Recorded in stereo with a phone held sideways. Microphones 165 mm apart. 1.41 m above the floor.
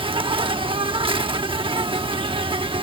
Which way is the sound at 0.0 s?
30° right (ahead or behind).